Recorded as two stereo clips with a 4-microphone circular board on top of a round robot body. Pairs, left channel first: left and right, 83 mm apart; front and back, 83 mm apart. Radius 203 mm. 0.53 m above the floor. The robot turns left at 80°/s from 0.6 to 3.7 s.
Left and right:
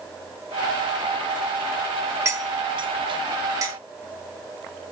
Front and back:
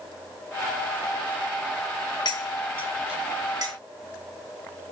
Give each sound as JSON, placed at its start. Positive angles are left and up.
{"t": 2.2, "sound": "cutlery clinking", "azimuth_deg": -30, "distance_m": 1.0}